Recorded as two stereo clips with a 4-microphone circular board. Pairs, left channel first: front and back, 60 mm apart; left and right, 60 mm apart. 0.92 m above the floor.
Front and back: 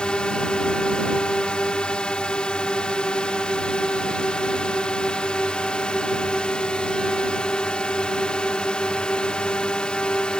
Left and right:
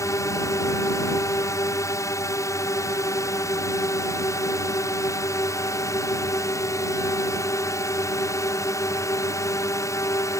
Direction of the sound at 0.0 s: 75° left.